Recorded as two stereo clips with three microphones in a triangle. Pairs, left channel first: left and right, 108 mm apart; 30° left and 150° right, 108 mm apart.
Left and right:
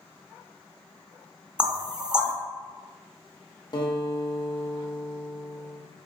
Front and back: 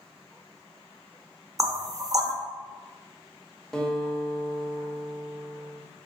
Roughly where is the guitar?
Left.